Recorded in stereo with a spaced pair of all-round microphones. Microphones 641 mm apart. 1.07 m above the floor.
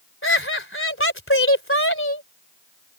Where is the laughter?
20° left (ahead or behind).